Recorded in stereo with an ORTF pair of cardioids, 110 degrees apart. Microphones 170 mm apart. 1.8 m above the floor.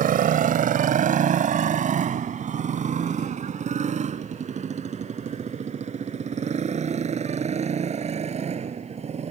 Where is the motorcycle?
60° right; by 9.3 s 40° right.